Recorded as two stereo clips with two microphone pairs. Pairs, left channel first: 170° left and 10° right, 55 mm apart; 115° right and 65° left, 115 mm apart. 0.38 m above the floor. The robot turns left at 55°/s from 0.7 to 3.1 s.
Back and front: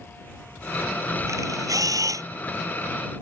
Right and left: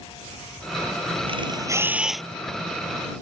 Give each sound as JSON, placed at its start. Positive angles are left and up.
{"t": 1.3, "sound": "a camera shutter", "azimuth_deg": 25}